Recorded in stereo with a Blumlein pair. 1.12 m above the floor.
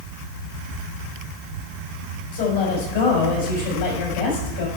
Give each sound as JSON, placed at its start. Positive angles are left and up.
{"t": 2.3, "sound": "a woman speaking", "azimuth_deg": 60, "distance_m": 5.5}